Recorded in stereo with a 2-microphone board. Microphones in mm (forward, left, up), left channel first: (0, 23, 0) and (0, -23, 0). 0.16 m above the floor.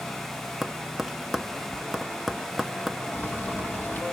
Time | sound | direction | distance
0.6 | tapping | 5° right (ahead or behind) | 0.6 m
3.1 | boiling | 50° left (ahead or behind) | 2.5 m